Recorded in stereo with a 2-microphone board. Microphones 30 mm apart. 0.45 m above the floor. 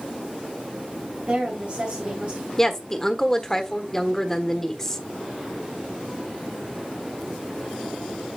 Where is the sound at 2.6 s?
15° left (ahead or behind), 1.2 m.